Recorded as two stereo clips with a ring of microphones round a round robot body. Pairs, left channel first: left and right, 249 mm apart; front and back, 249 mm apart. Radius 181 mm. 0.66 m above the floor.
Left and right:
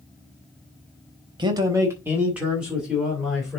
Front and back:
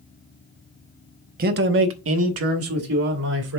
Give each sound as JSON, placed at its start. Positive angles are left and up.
{"t": 1.4, "sound": "a man speaking", "azimuth_deg": -150, "distance_m": 0.8}